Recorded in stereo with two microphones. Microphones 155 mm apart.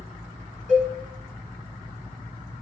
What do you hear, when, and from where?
0.7 s a cowbell: 50° right (ahead or behind), 7.5 m